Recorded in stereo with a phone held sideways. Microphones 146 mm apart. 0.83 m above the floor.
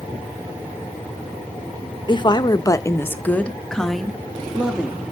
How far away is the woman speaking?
About 0.8 m.